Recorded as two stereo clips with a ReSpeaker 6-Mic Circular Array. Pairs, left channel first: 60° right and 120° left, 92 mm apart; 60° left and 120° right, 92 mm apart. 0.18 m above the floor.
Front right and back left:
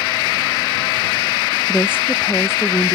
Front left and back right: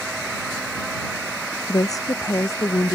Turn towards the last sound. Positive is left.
turn(degrees=5)